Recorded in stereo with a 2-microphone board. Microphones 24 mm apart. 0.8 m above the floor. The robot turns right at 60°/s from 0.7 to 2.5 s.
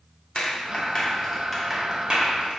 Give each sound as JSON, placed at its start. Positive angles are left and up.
{"t": 0.3, "sound": "a clap", "side_deg": 45, "distance_m": 1.5}